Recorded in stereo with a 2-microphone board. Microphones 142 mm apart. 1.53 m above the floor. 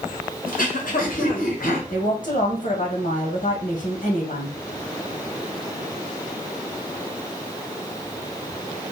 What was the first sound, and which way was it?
Throat clearing, 80° left.